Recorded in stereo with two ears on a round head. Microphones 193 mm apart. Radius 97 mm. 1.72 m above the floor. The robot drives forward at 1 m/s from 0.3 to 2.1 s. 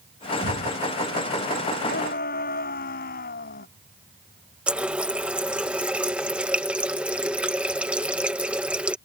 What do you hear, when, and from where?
0.4 s an explosion: 65° left (ahead or behind); by 0.8 s 60° left (ahead or behind)
1.8 s a shout: 45° left (ahead or behind)
4.7 s a running tap: 5° right (ahead or behind)